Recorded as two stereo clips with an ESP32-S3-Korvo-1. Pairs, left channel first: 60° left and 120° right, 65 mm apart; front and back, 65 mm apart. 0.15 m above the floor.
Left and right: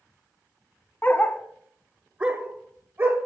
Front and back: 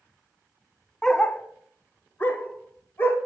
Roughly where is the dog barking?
Left.